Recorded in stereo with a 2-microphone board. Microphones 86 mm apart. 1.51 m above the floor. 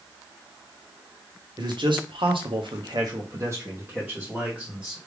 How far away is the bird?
No bird in this recording.